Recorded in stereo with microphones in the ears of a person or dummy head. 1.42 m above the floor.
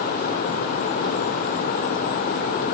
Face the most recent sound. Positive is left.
No sound to turn to.